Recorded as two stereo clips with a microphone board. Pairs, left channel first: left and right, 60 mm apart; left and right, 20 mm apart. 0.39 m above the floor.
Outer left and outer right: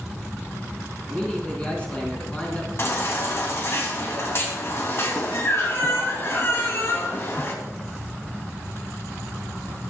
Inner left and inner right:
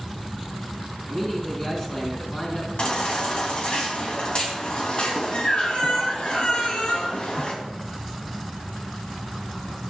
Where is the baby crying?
45° left (ahead or behind), 2.5 m.